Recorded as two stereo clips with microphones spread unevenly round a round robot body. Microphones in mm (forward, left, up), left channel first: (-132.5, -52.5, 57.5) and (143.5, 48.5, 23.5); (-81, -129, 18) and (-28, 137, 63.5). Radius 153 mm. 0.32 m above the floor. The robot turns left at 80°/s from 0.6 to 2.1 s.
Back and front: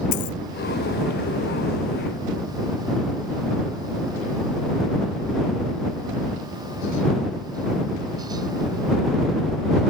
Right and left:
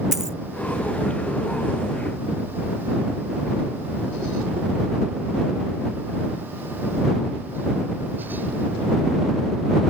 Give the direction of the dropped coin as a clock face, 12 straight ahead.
6 o'clock.